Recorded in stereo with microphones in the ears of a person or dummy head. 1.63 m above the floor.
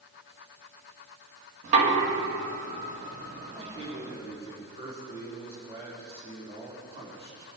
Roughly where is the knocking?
Right.